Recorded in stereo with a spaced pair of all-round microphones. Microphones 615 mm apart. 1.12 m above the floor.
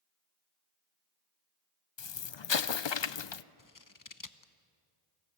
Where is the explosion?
50° left (ahead or behind), 0.5 m.